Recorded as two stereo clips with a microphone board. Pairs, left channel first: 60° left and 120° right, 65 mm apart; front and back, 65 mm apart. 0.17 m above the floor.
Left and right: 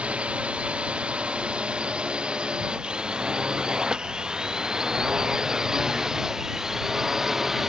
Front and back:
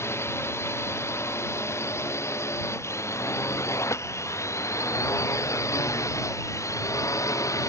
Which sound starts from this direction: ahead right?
A drone, at 0.0 s.